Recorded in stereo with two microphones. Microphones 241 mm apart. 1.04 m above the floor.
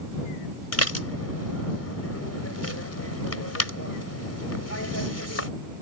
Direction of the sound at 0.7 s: 85° left.